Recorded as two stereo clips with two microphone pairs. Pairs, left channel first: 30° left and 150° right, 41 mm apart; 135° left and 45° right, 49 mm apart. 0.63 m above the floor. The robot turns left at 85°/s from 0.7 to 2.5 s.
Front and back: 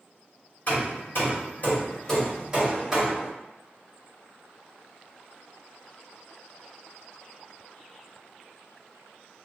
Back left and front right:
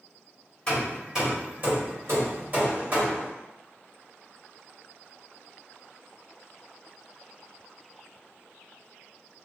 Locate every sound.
0.7 s hammering: 70° left, 1.7 m; by 3.3 s 85° right, 1.7 m